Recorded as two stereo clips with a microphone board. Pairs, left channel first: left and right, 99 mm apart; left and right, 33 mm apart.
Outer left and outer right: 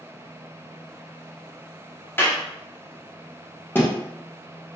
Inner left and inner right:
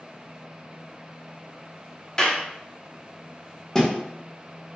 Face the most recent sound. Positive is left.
turn(degrees=20)  # may be behind; listen again after turning